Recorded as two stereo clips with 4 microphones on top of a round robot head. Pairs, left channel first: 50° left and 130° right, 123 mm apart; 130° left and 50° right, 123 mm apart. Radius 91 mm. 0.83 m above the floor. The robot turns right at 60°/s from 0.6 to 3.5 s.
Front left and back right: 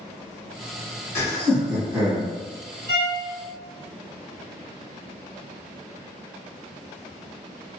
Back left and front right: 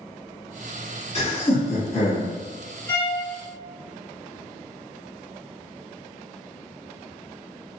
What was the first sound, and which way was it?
Laughter, 110° left.